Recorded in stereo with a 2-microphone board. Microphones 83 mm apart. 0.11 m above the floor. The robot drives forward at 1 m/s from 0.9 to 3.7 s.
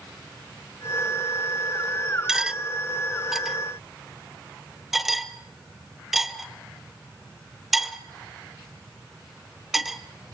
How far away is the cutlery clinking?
About 0.6 m.